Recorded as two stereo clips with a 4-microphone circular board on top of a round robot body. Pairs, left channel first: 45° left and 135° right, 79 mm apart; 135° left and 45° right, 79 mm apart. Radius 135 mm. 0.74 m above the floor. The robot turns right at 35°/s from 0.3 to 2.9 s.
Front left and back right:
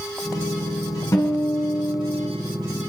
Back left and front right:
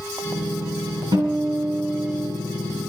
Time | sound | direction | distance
1.1 | a guitar | 5° right | 6 m